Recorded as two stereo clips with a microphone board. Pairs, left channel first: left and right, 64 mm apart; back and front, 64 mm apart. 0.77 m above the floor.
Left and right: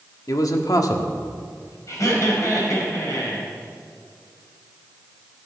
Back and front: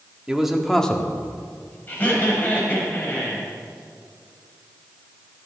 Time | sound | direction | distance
0.3 | a man speaking | 80° left | 1.3 m
1.9 | laughter | 120° left | 5.5 m